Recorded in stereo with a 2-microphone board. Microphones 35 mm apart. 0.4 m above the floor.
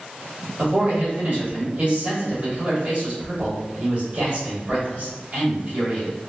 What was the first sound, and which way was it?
A man speaking, 50° right (ahead or behind).